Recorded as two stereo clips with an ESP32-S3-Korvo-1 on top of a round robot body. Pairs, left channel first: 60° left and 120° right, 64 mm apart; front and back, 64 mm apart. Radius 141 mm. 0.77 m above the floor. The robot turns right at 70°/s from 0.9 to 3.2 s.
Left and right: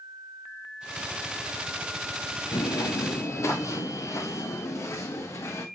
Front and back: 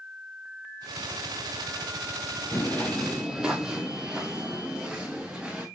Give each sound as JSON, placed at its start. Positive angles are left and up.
{"t": 2.5, "sound": "footsteps", "azimuth_deg": 55, "distance_m": 1.0}